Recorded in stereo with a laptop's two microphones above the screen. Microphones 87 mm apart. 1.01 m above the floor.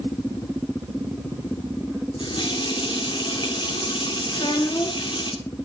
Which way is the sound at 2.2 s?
65° left (ahead or behind).